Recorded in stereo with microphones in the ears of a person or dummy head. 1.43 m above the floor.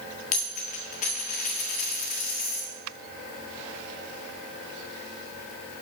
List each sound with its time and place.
0.3 s a dropped coin: 40° left (ahead or behind), 1.4 m